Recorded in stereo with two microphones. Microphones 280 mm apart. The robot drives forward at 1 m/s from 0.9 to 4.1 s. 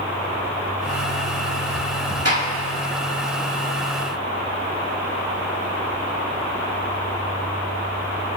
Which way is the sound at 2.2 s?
60° right (ahead or behind).